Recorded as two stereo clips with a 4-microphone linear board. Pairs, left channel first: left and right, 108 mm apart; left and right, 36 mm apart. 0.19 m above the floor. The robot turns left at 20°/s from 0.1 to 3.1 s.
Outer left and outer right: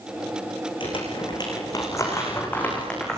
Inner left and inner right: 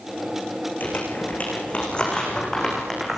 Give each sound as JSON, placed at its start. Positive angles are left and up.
{"t": 0.8, "sound": "crumpling", "side_deg": 50, "distance_m": 10.0}